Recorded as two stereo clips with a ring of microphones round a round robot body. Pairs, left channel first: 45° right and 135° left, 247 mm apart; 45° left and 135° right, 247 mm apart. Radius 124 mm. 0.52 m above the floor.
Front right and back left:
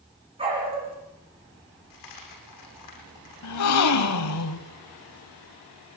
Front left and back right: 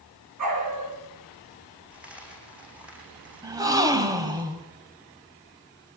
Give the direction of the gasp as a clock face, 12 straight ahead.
2 o'clock.